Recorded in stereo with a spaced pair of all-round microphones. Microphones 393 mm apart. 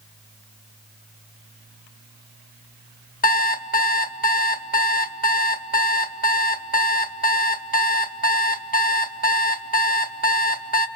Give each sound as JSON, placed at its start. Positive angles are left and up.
{"t": 3.2, "sound": "an alarm clock", "side_deg": 20, "distance_m": 1.0}